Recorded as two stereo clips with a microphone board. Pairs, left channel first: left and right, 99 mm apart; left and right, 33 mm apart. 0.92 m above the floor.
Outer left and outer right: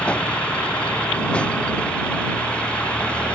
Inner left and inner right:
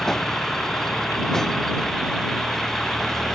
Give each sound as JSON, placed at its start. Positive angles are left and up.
{"t": 0.0, "sound": "a vehicle", "side_deg": 10}